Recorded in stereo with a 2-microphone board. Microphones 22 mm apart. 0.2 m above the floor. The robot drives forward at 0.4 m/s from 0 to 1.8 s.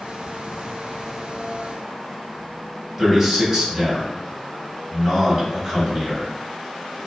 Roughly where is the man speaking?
Right.